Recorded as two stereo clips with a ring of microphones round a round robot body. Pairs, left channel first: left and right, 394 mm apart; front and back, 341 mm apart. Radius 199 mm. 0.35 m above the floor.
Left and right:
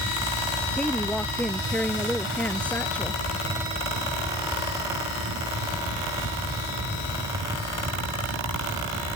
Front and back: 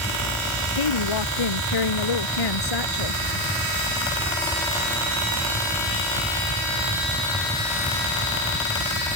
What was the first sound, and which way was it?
A woman speaking, 5° left.